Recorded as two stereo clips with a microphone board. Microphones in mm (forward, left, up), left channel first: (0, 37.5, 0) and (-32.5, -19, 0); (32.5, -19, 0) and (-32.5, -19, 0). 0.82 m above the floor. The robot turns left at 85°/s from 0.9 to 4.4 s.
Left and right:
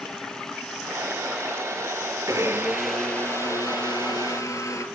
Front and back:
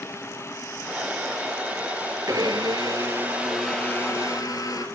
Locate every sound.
2.3 s a blender: 155° right, 3.5 m; by 4.8 s 25° left, 3.5 m